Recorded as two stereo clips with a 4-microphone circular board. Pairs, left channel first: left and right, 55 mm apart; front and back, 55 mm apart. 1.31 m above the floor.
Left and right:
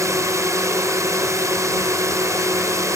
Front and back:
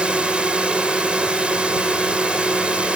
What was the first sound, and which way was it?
A drone, 110° right.